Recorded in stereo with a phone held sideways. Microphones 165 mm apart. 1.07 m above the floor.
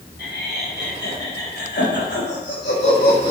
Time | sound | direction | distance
0.2 | laughter | 80° left | 5 m